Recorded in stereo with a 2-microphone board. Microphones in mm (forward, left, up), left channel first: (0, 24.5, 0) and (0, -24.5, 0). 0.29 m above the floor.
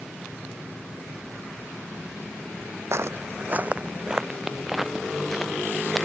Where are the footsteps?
65° right (ahead or behind); by 6.0 s 5° left (ahead or behind).